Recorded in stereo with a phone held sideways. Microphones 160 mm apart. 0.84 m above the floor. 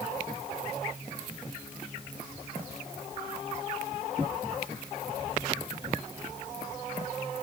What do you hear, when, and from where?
Only background noise.